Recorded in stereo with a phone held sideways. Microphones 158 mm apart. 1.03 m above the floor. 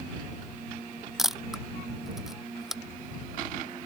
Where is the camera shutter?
Centre (ahead or behind).